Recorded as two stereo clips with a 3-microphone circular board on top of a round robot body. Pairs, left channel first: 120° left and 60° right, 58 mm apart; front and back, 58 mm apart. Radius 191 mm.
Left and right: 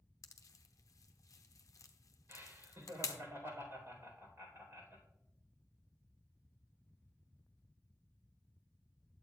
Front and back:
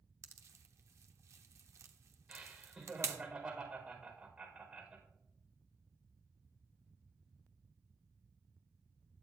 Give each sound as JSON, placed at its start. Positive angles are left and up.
{"t": 0.2, "sound": "a pop", "azimuth_deg": 145, "distance_m": 0.5}
{"t": 2.3, "sound": "laughter", "azimuth_deg": -105, "distance_m": 4.0}